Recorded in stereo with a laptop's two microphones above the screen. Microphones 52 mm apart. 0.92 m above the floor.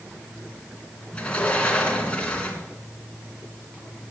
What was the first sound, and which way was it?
A sliding door, 20° left (ahead or behind).